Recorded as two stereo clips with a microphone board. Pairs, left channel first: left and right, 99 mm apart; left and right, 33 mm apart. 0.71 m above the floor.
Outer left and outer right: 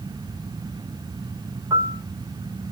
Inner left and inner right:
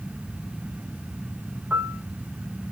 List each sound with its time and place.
1.7 s a piano: 35° right (ahead or behind), 1.3 m